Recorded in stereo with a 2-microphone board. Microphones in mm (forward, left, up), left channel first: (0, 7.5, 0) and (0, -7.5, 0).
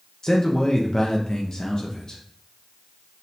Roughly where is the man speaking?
Left.